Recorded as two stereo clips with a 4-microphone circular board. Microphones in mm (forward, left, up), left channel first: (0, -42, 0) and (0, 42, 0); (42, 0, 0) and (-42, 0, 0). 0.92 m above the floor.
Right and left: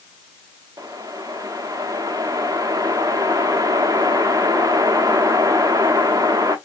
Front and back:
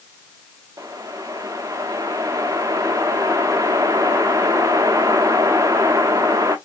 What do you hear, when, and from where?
0.8 s a whoosh: 130° left, 0.7 m